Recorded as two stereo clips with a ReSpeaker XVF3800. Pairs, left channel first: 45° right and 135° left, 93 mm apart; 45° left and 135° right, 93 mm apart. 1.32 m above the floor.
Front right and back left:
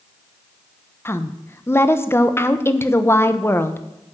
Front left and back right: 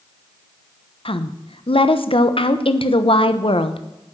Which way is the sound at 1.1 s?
20° left.